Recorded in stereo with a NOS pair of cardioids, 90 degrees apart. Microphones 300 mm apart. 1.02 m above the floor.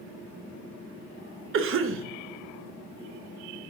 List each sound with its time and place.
1.5 s a cough: 45° right, 0.5 m